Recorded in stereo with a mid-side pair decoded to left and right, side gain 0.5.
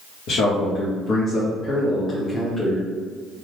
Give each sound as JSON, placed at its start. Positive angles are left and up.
{"t": 0.3, "sound": "a man speaking", "azimuth_deg": 70, "distance_m": 1.2}